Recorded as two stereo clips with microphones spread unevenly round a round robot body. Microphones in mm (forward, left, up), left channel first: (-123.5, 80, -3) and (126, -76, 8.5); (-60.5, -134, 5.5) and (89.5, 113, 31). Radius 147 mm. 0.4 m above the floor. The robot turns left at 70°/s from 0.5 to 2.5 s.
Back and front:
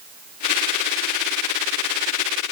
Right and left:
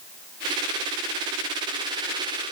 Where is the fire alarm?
I don't hear a fire alarm.